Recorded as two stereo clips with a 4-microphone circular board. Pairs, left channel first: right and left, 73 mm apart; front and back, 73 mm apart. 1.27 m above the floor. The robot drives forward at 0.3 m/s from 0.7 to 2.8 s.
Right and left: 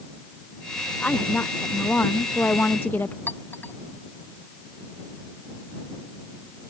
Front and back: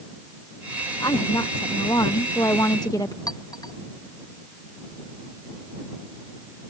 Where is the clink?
25° right.